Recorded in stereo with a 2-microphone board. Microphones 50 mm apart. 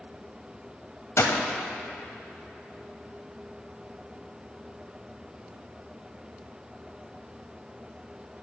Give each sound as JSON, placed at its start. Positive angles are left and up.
{"t": 1.2, "sound": "a gunshot", "side_deg": 75, "distance_m": 0.8}